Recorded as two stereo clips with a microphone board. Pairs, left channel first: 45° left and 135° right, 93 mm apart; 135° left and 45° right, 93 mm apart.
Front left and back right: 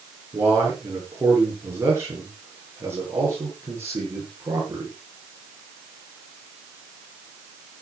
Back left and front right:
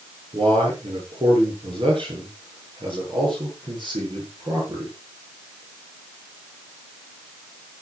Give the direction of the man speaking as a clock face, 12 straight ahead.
2 o'clock.